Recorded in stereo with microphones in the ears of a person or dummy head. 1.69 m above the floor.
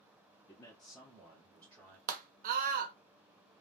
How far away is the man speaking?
About 0.6 m.